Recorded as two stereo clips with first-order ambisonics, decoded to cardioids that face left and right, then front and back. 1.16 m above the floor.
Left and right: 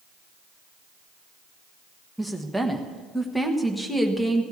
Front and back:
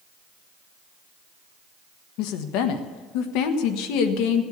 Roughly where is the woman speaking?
Ahead.